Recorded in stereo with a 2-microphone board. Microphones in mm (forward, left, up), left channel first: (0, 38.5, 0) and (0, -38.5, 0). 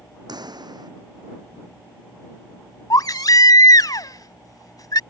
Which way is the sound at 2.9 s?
60° left (ahead or behind).